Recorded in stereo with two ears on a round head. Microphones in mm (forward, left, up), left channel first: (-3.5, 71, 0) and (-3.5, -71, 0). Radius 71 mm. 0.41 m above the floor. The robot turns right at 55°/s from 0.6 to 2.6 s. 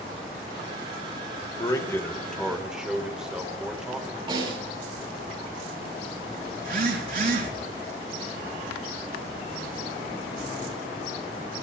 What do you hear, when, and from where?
1.6 s a man speaking: 130° left, 1.8 m; by 4.2 s 170° right, 1.8 m
4.3 s a snare drum: 35° right (ahead or behind), 8 m
6.6 s a phone buzzing: 60° right (ahead or behind), 5 m